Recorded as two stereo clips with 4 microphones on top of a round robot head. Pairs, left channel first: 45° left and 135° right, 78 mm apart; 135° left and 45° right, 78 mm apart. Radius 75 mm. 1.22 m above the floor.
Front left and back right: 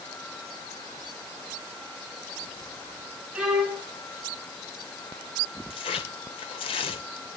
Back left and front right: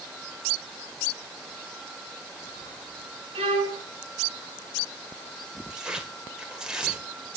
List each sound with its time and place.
3.4 s a violin: 50° right, 3.5 m
5.7 s tearing paper: 35° left, 2 m